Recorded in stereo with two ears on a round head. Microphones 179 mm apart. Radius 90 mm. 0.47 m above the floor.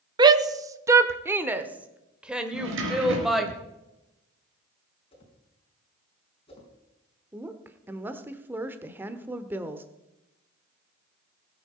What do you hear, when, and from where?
0.2 s a shout: 20° right (ahead or behind), 0.9 m; by 3.5 s centre (ahead or behind), 2 m
2.5 s a drawer: 75° right (ahead or behind), 3.5 m
5.1 s a whoosh: 30° left (ahead or behind), 4.5 m
7.3 s a woman speaking: 10° right (ahead or behind), 1.0 m